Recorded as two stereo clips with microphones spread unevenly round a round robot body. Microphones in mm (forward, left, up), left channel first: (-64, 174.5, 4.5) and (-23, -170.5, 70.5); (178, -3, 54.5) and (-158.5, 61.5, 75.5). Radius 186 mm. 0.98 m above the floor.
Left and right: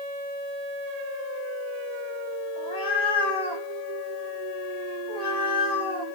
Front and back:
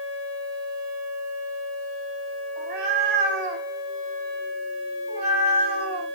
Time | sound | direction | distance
2.6 | a cat meowing | 175° left | 1.9 m